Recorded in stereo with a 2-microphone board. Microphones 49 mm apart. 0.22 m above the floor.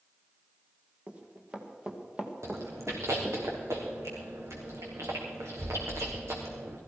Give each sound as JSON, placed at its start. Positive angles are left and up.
{"t": 1.1, "sound": "running footsteps", "side_deg": -25, "distance_m": 2.5}
{"t": 2.4, "sound": "chewing", "side_deg": -75, "distance_m": 3.5}